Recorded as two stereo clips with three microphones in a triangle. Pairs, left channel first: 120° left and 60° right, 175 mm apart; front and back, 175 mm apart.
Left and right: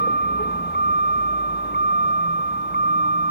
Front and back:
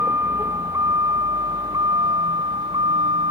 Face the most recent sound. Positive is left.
turn(degrees=120)